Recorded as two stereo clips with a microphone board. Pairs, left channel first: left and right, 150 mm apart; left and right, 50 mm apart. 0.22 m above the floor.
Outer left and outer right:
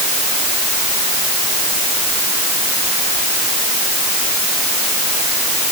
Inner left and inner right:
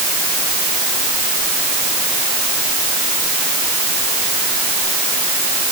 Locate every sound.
Only background noise.